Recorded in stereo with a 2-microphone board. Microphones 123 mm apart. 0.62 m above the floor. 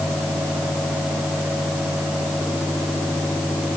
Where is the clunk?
No clunk in this recording.